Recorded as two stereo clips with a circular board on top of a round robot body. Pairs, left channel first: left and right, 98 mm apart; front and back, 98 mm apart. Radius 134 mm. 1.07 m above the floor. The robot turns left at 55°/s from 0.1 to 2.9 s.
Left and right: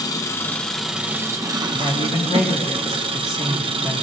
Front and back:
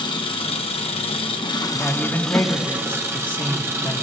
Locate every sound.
0.0 s an engine running: 40° left, 0.9 m; by 4.0 s 115° right, 0.9 m
1.7 s a man speaking: 100° left, 1.7 m; by 4.0 s 35° left, 1.7 m